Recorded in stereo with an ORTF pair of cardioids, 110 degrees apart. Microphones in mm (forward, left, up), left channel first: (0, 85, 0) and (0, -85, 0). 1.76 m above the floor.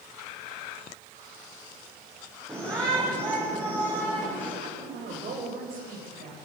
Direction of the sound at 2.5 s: 15° right.